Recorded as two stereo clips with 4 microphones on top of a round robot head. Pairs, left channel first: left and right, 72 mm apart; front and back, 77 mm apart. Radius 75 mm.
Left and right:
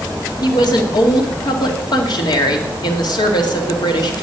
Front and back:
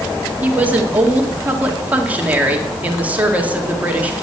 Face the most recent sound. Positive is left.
turn(degrees=110)